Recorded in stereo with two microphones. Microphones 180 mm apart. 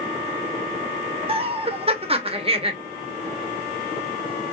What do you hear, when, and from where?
1.3 s laughter: 35° right (ahead or behind), 1.2 m